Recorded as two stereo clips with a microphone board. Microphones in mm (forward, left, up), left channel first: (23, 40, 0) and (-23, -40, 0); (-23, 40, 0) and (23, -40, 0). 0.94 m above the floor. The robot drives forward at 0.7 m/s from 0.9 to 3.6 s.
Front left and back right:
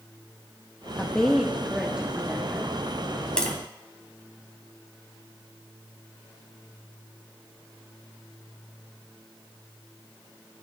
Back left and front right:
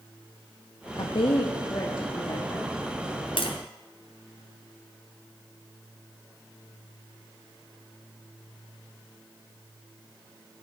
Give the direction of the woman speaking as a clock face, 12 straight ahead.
7 o'clock.